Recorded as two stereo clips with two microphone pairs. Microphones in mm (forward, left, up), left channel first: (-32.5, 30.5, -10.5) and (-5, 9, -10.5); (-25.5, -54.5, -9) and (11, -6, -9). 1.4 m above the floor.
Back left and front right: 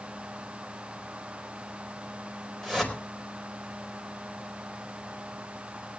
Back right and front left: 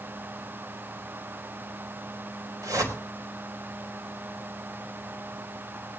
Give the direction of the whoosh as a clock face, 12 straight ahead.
10 o'clock.